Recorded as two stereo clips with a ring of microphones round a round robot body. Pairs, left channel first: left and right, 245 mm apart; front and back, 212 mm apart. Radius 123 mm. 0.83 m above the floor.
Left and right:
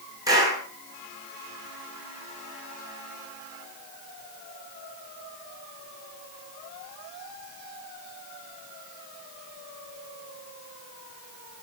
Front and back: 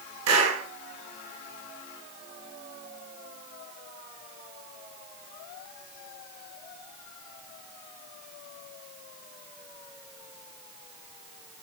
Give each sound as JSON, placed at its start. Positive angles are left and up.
{"t": 0.3, "sound": "a clap", "azimuth_deg": -165, "distance_m": 9.5}